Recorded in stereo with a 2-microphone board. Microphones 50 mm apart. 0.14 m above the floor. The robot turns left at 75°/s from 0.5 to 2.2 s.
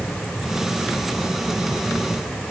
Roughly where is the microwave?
No microwave in this recording.